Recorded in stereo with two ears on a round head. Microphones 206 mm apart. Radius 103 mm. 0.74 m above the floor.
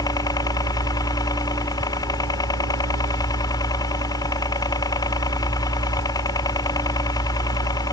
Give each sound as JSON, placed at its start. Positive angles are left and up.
{"t": 0.0, "sound": "a helicopter", "side_deg": 15}